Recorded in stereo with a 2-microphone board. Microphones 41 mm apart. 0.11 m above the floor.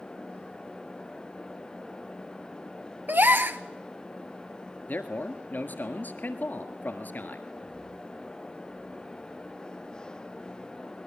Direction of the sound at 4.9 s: 50° left (ahead or behind).